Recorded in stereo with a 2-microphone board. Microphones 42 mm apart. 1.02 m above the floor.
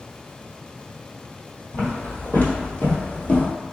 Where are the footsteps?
55° left (ahead or behind), 1.7 m; by 3.5 s 40° left (ahead or behind), 1.3 m.